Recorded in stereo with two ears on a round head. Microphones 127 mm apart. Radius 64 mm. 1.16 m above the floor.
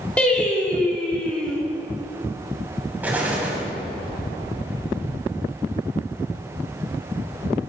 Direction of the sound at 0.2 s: 10° left (ahead or behind).